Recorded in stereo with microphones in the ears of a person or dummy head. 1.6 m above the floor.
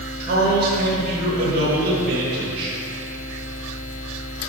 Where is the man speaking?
60° right (ahead or behind), 2 m.